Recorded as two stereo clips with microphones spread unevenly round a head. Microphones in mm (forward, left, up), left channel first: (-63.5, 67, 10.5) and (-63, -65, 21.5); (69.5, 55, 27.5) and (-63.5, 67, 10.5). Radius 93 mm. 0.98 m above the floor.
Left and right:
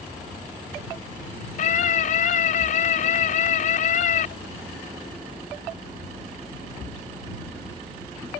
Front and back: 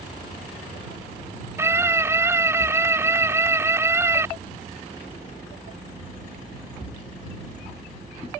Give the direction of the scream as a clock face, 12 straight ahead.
8 o'clock.